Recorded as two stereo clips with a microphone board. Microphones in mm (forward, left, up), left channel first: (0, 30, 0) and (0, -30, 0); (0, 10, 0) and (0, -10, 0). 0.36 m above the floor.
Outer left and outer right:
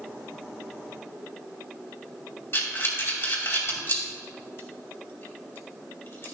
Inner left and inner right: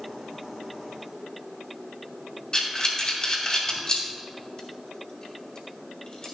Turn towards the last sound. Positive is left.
turn(degrees=45)  # may be behind; listen again after turning